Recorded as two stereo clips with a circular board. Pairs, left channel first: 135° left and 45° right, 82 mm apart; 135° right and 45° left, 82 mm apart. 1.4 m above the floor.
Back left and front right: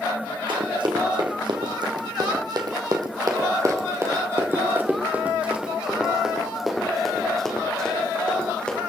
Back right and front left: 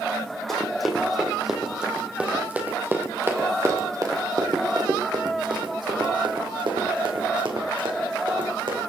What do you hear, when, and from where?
0.5 s running footsteps: 45° right, 3.5 m; by 8.8 s 60° left, 4.5 m